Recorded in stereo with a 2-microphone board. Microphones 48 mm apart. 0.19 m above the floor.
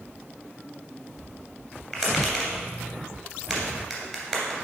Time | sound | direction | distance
1.9 | tapping | 10° right (ahead or behind) | 2.5 m